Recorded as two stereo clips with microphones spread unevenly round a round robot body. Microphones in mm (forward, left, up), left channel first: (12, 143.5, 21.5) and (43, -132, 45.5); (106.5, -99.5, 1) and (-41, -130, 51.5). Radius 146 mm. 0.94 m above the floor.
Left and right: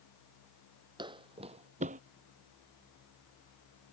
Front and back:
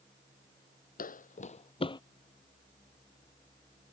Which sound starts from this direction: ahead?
Footsteps, at 1.0 s.